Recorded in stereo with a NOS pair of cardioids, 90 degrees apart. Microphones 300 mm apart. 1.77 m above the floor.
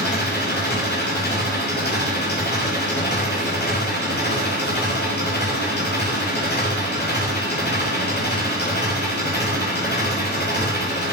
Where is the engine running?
35° left, 9.5 m.